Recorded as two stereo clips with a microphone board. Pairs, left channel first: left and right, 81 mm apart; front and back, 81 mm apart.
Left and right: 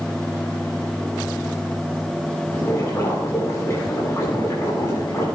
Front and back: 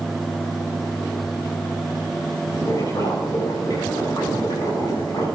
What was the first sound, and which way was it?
Boiling, 40° left.